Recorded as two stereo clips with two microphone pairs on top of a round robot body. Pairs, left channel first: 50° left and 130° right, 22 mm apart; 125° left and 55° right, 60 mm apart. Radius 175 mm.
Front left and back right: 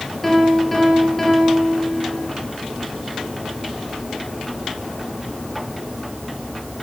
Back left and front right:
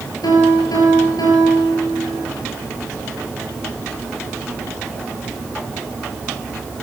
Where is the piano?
130° left, 7.5 m.